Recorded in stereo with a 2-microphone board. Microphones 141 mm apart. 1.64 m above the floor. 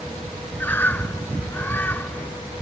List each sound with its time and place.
0.6 s a bird: 15° left (ahead or behind)